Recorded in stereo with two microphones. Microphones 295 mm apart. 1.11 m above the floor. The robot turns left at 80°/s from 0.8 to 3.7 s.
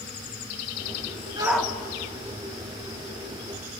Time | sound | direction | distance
1.4 | a shout | 15° right (ahead or behind) | 2 m